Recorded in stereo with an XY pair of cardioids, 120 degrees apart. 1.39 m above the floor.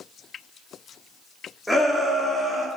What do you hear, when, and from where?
1.7 s a shout: straight ahead, 3 m; by 2.7 s 25° right, 3.5 m